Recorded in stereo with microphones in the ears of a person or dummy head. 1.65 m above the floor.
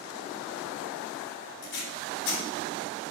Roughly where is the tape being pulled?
Left.